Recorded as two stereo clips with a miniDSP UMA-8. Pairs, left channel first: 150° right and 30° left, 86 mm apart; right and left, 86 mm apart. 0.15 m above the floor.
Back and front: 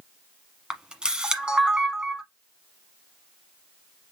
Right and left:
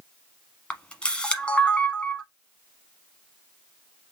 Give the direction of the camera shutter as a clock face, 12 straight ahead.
1 o'clock.